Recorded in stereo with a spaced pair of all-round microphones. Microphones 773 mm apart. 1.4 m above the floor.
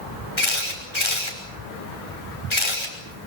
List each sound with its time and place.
0.4 s a camera shutter: 35° left (ahead or behind), 5.5 m